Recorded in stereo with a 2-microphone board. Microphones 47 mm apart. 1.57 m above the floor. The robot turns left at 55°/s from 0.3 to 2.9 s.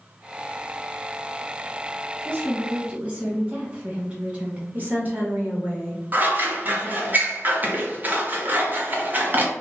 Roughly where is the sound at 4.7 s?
Right.